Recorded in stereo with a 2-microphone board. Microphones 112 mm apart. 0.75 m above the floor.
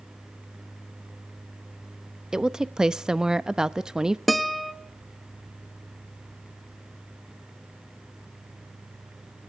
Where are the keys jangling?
No keys jangling in this recording.